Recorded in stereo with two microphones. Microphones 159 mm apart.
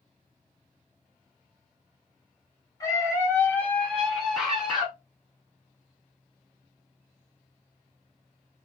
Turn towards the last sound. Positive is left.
turn(degrees=-5)  # may be behind; listen again after turning